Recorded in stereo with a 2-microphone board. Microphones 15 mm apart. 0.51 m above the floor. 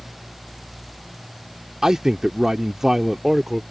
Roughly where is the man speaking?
Right.